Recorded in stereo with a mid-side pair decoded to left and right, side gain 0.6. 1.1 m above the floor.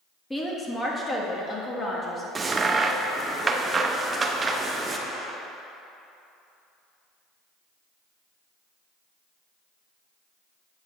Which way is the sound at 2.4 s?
25° right.